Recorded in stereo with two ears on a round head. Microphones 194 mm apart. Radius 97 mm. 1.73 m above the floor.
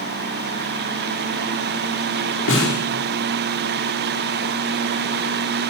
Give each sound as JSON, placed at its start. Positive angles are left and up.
{"t": 2.5, "sound": "a snare drum", "side_deg": 60, "distance_m": 6.0}